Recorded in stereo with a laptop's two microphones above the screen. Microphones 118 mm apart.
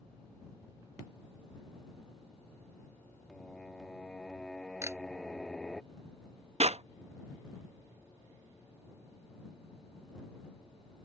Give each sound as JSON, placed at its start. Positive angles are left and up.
{"t": 3.3, "sound": "singing", "side_deg": 5}
{"t": 4.8, "sound": "a camera shutter", "side_deg": -20}
{"t": 6.6, "sound": "a clap", "side_deg": -60}